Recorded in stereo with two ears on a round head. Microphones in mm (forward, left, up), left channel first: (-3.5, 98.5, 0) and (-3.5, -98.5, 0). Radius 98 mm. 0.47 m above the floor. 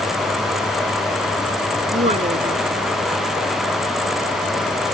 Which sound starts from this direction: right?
A woman speaking, at 1.9 s.